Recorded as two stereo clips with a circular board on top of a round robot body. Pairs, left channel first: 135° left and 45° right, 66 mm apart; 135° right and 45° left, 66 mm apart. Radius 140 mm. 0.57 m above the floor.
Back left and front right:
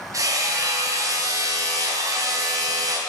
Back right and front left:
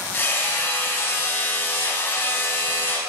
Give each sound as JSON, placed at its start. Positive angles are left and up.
{"t": 0.1, "sound": "hammering", "azimuth_deg": -80, "distance_m": 3.5}